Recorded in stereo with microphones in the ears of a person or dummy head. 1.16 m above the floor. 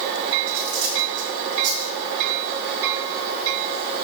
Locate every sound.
0.5 s cutlery clinking: 65° right (ahead or behind), 2 m